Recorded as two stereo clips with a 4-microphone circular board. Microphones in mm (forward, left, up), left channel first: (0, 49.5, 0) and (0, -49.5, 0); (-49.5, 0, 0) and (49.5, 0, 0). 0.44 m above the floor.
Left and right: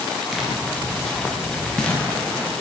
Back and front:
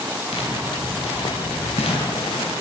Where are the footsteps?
Straight behind, 7 m; by 2.5 s 165° left, 8 m.